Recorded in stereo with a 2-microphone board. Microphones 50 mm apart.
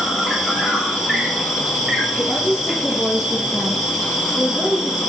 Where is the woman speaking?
15° right (ahead or behind), 1.8 m.